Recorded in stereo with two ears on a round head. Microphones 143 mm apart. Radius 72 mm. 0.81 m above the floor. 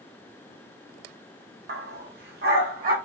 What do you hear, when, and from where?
1.7 s a dog barking: 65° right (ahead or behind), 0.6 m; by 3.0 s 60° right (ahead or behind), 1.5 m